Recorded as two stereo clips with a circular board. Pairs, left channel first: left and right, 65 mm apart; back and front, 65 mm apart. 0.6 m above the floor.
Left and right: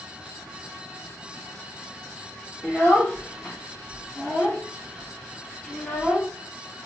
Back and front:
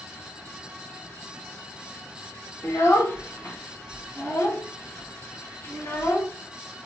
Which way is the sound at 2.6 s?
150° left.